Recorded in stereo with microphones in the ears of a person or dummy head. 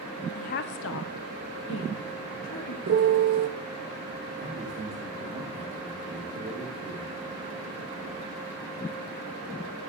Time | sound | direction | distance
0.3 | a woman speaking | 30° left (ahead or behind) | 0.6 m
2.9 | a piano | 50° right (ahead or behind) | 0.8 m
4.4 | a man speaking | 30° right (ahead or behind) | 4.5 m